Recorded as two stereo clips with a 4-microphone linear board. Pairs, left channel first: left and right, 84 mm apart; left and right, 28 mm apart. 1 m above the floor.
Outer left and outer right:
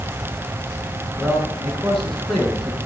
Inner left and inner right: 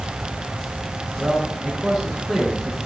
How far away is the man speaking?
About 9.5 m.